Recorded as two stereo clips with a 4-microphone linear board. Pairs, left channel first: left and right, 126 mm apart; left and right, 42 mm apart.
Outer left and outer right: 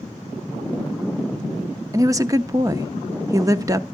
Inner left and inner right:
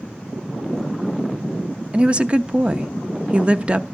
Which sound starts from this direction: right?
A woman speaking, at 1.9 s.